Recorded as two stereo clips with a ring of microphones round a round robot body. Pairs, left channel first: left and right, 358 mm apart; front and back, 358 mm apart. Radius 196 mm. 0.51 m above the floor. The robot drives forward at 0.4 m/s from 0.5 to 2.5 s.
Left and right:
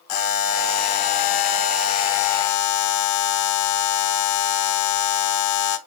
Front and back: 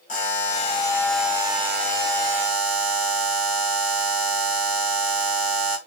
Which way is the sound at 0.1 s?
70° left.